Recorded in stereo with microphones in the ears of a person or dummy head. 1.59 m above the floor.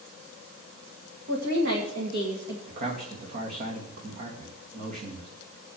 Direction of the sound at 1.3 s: 60° right (ahead or behind).